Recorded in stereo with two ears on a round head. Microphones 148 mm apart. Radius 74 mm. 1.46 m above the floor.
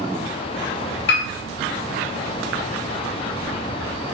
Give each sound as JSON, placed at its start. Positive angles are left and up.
{"t": 1.1, "sound": "a piano", "side_deg": 70, "distance_m": 1.3}